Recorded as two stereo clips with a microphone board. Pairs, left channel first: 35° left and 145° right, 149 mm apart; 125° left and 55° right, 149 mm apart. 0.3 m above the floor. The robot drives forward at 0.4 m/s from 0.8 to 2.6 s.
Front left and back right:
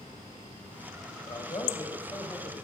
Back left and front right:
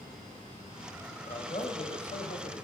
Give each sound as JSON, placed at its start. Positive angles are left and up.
{"t": 1.3, "sound": "a man speaking", "azimuth_deg": 90, "distance_m": 1.5}